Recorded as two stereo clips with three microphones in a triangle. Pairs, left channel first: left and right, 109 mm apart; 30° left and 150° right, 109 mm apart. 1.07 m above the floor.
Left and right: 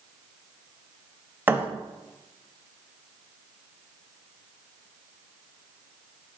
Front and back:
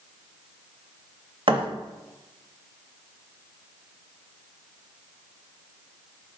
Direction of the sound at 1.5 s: 155° right.